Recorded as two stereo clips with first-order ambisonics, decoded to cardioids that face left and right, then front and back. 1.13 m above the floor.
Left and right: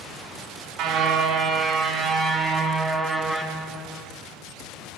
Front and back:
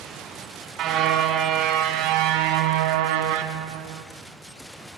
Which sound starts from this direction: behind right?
A car horn, at 0.8 s.